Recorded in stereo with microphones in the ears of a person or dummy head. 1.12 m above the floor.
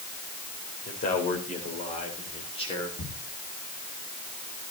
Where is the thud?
70° left (ahead or behind), 4 m.